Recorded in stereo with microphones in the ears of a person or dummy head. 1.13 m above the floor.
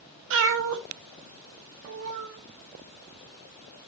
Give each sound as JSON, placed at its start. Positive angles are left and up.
{"t": 0.3, "sound": "a cat meowing", "side_deg": -70, "distance_m": 1.0}